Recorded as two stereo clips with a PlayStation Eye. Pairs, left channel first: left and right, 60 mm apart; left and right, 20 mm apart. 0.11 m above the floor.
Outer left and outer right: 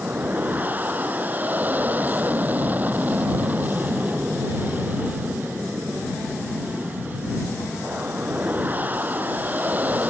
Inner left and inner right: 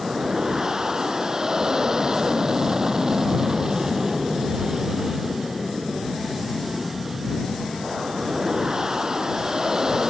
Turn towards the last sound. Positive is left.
turn(degrees=-30)  # may be behind; listen again after turning